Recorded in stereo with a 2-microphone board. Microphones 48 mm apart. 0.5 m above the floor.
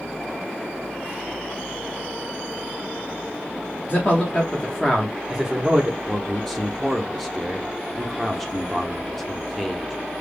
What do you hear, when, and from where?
3.9 s a man speaking: 40° left (ahead or behind), 1.0 m; by 6.0 s 30° right (ahead or behind), 0.8 m
6.1 s a man speaking: centre (ahead or behind), 0.7 m